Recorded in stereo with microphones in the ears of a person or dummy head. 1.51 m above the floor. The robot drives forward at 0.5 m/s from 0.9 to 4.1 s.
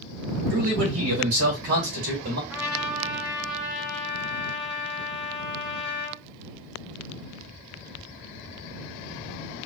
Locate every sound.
0.5 s a man speaking: 85° right, 2.5 m; by 2.4 s 70° right (ahead or behind), 2.5 m
2.5 s a trumpet: 5° right (ahead or behind), 1.0 m